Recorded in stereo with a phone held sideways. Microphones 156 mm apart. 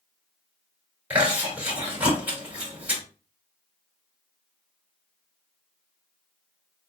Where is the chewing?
10° right (ahead or behind), 2.5 m.